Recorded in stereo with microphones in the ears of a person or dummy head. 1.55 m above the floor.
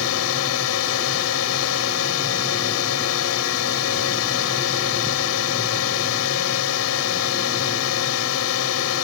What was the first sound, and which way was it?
A drone, 85° left.